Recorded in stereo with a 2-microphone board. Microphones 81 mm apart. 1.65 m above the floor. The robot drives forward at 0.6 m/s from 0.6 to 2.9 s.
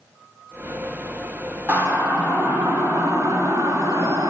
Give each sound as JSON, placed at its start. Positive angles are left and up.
{"t": 1.7, "sound": "a siren", "side_deg": -25, "distance_m": 4.5}